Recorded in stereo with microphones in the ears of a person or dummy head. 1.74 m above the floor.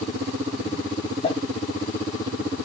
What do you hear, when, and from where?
1.2 s crumpling: 30° left (ahead or behind), 1.2 m